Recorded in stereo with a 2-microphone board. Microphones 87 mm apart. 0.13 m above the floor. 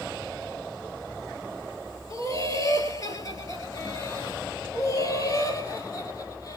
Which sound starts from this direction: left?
Laughter, at 2.1 s.